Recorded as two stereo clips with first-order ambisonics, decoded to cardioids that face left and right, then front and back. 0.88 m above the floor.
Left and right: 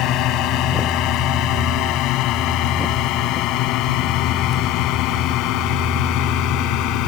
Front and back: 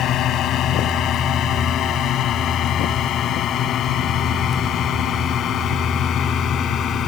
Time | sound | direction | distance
0.0 | a drone | 50° left | ?